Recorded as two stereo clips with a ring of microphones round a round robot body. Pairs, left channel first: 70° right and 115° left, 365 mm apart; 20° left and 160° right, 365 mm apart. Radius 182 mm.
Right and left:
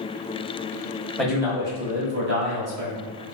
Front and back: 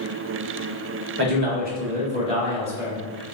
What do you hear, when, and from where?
1.2 s a man speaking: 155° right, 1.0 m; by 3.0 s 115° left, 1.3 m